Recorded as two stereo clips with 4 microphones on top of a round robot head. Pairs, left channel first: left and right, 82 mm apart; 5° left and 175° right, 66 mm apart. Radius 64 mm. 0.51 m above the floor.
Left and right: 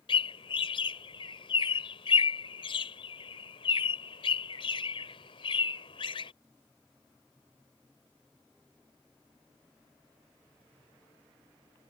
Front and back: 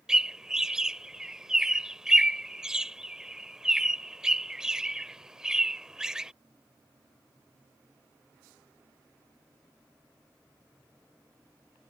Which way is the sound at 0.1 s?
110° left.